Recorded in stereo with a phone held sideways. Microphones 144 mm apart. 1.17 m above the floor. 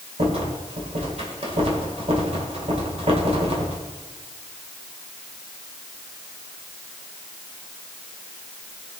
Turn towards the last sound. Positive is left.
turn(degrees=-45)  # may be behind; listen again after turning